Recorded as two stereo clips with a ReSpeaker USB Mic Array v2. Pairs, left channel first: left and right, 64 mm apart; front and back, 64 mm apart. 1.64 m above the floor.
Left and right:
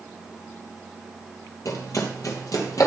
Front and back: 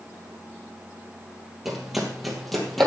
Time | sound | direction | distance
1.6 | running footsteps | 95° left | 3 m